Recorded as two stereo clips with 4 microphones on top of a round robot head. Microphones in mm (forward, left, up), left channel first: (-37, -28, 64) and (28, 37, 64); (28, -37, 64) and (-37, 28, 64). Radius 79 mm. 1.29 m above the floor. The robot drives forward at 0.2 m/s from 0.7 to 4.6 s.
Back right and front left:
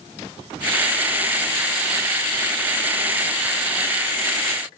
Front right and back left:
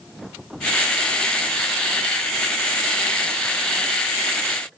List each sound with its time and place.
Only background noise.